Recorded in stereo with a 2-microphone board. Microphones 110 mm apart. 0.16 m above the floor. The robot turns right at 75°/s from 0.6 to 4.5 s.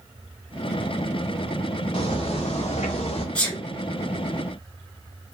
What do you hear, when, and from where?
1.9 s footsteps: 50° left (ahead or behind), 1.0 m; by 3.2 s 65° left (ahead or behind), 1.1 m
3.4 s a sneeze: 10° left (ahead or behind), 1.6 m; by 3.6 s 15° left (ahead or behind), 1.6 m